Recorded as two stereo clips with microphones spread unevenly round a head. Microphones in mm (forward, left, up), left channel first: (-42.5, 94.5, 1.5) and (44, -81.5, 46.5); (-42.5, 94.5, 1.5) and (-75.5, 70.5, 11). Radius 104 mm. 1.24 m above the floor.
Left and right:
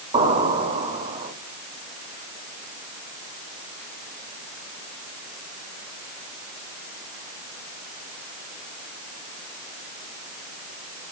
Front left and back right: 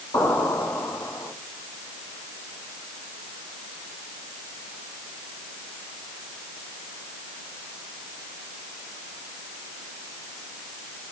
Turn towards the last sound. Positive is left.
turn(degrees=0)